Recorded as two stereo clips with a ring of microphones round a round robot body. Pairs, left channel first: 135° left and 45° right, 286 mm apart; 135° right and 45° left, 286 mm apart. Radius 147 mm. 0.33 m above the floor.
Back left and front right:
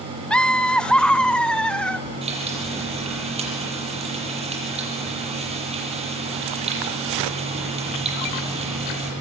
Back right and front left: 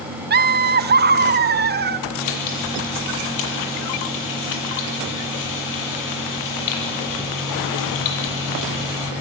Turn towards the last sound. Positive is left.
turn(degrees=-115)